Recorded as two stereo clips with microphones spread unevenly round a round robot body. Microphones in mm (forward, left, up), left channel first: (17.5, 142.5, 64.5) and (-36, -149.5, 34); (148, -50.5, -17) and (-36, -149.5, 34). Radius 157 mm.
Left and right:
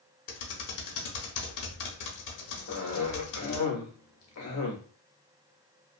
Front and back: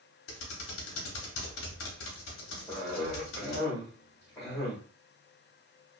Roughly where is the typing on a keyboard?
Ahead left.